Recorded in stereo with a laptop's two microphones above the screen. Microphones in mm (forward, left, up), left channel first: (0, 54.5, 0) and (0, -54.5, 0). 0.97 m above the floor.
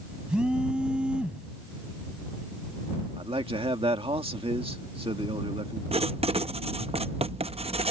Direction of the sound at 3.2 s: 65° right (ahead or behind).